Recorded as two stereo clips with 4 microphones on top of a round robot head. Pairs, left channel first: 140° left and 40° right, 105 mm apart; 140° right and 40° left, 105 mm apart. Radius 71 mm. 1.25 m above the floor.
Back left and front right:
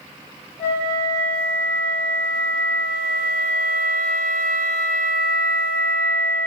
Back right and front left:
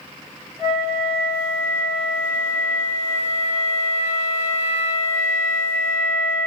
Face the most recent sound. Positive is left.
turn(degrees=165)